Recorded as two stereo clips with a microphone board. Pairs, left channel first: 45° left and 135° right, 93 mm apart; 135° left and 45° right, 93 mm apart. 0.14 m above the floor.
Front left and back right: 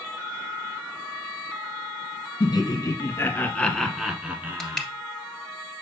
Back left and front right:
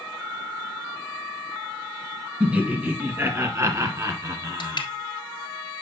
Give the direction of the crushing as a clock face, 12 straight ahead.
8 o'clock.